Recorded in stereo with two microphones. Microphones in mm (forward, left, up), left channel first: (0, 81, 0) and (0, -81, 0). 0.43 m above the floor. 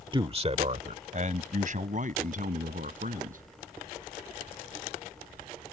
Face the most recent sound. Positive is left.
turn(degrees=-60)  # may be behind; listen again after turning